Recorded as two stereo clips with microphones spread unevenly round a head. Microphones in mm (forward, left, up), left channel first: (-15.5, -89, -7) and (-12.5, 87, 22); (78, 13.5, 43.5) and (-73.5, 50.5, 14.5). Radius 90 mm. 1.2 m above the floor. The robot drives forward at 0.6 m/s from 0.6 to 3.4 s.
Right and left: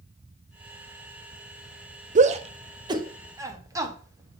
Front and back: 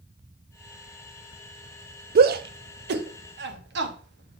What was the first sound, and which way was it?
A shout, 140° left.